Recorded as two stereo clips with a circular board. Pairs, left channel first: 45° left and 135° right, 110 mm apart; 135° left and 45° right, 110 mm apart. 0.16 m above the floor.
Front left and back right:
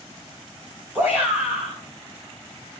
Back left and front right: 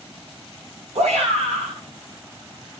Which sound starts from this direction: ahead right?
A shout, at 0.9 s.